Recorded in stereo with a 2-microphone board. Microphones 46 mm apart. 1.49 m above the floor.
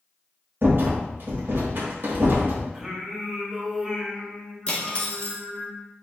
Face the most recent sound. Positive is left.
turn(degrees=20)  # may be behind; listen again after turning